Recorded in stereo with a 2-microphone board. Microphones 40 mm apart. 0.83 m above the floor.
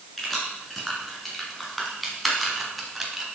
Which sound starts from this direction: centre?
Keys jangling, at 0.2 s.